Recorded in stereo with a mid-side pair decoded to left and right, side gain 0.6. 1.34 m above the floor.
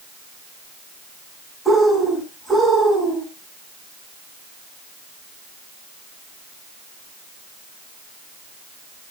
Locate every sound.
1.6 s a bird: 5° left, 9 m